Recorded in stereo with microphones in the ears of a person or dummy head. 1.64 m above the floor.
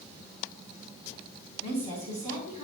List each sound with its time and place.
1.6 s a woman speaking: 35° left (ahead or behind), 4.5 m